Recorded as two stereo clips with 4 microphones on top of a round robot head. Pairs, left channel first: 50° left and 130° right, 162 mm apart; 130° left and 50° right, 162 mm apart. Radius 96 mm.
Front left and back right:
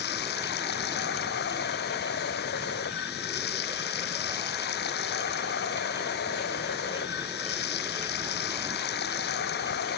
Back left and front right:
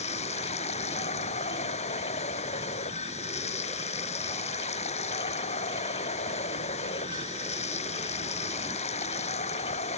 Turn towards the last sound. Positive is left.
turn(degrees=75)